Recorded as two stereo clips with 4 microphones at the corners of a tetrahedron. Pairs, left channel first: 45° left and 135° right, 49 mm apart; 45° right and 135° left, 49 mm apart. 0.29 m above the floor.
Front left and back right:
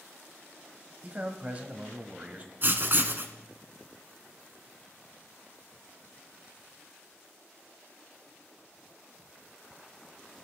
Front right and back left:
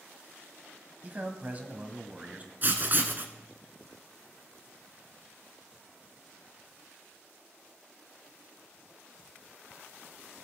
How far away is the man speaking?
About 1.3 m.